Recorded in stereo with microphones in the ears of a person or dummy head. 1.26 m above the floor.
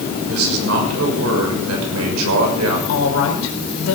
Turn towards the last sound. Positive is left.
turn(degrees=85)